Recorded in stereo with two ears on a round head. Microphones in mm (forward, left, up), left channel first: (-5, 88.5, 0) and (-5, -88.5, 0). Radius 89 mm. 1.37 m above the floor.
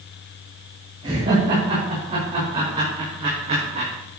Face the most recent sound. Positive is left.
turn(degrees=-35)  # may be behind; listen again after turning